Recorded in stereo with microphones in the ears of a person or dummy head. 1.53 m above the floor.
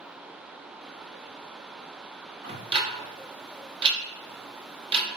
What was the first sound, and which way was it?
Ticking, 35° right (ahead or behind).